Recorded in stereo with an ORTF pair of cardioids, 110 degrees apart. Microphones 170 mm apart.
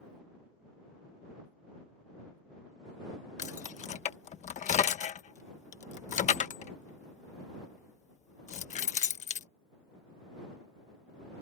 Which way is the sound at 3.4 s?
45° left.